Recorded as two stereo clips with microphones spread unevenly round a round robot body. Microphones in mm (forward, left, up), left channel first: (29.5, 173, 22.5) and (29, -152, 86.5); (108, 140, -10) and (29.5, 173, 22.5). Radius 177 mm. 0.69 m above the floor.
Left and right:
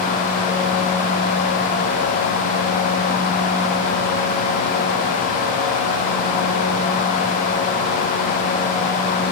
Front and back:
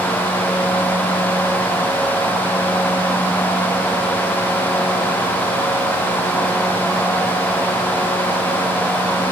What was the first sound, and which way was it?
Only background noise.